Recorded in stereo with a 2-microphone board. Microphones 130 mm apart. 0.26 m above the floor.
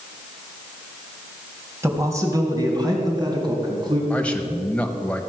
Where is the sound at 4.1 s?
10° left (ahead or behind), 1.1 m.